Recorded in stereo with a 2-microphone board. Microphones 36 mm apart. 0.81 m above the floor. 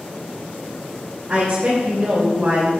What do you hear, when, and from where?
1.3 s a woman speaking: 25° right (ahead or behind), 2.5 m; by 2.7 s 40° right (ahead or behind), 3.5 m